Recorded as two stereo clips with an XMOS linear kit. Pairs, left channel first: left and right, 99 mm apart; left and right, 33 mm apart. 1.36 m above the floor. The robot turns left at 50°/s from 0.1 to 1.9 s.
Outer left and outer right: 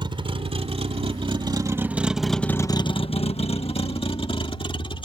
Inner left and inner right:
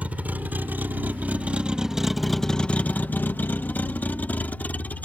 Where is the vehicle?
55° right (ahead or behind); by 5.0 s 60° left (ahead or behind).